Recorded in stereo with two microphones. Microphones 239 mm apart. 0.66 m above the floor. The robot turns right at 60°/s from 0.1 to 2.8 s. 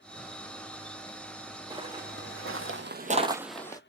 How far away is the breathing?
I don't hear breathing.